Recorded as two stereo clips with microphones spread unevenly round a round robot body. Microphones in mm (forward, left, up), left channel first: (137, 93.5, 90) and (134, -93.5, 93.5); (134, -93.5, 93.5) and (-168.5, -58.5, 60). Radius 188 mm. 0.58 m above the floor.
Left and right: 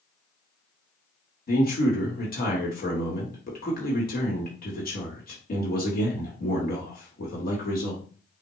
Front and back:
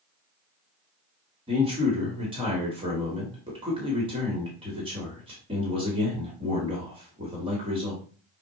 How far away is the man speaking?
About 1.2 m.